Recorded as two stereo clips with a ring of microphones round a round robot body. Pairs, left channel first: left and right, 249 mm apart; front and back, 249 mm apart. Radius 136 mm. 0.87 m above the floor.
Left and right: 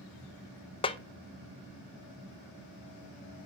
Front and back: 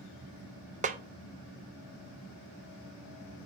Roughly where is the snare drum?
Behind left.